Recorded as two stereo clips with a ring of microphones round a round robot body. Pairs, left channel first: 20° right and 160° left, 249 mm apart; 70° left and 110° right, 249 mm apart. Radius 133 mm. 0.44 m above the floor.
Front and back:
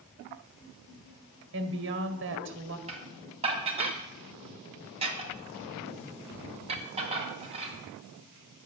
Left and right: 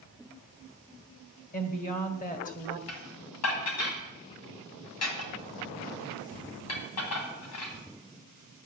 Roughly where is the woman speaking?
Behind left.